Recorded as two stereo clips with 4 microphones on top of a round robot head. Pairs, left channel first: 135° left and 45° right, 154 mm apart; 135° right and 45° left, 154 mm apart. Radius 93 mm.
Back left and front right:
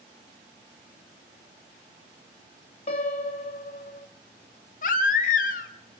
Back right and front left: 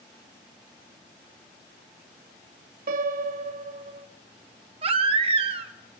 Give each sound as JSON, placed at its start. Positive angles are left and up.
{"t": 2.9, "sound": "a piano", "azimuth_deg": 80, "distance_m": 1.9}
{"t": 4.8, "sound": "a baby crying", "azimuth_deg": 95, "distance_m": 1.2}